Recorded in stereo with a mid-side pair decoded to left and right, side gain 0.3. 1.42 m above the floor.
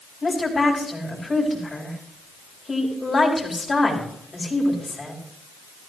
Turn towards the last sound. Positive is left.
turn(degrees=35)